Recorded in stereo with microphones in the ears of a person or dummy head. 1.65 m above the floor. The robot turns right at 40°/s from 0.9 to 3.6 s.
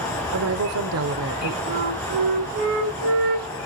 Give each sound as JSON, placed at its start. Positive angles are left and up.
{"t": 0.3, "sound": "a woman speaking", "side_deg": -80, "distance_m": 1.0}
{"t": 1.7, "sound": "a flute", "azimuth_deg": -140, "distance_m": 3.5}